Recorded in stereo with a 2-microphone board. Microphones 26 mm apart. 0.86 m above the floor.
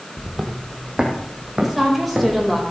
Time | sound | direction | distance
0.2 | footsteps | 10° right (ahead or behind) | 1.7 m
1.6 | a woman speaking | centre (ahead or behind) | 4.5 m